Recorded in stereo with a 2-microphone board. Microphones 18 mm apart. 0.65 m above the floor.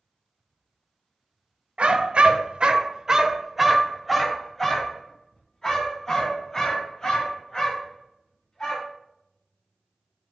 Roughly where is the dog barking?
Right.